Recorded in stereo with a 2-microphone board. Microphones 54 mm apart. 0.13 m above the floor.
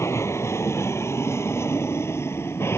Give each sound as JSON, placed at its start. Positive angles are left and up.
{"t": 0.0, "sound": "an aircraft", "side_deg": 60}